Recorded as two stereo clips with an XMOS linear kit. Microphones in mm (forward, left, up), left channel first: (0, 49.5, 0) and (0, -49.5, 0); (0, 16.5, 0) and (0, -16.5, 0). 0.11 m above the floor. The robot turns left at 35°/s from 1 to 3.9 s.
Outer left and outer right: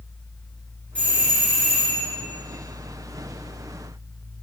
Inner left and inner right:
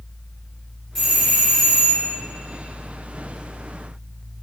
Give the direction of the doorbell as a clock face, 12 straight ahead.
11 o'clock.